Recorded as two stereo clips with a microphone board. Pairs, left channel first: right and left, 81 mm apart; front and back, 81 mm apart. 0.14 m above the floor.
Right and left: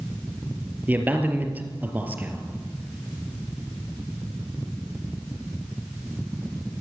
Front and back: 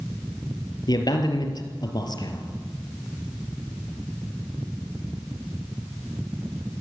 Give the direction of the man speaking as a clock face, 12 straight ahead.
11 o'clock.